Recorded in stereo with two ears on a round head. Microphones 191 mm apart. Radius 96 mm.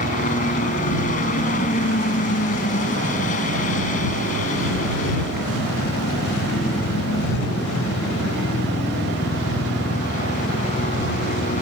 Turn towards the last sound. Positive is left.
turn(degrees=35)  # may be behind; listen again after turning